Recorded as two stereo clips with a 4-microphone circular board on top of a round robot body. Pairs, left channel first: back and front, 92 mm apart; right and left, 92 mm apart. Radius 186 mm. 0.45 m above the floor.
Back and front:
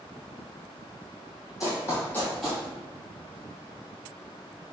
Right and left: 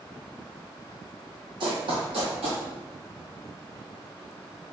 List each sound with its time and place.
1.6 s running footsteps: 125° left, 1.1 m; by 2.6 s 75° left, 0.6 m